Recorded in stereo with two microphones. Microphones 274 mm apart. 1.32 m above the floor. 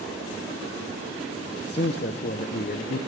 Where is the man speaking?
40° left (ahead or behind), 0.7 m.